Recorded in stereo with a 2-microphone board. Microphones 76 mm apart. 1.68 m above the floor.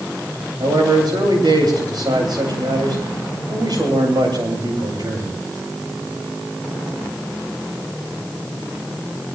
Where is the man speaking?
65° right (ahead or behind), 8 m.